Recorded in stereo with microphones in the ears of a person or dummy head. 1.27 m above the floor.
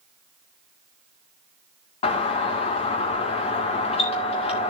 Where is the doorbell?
30° left (ahead or behind), 1.9 m.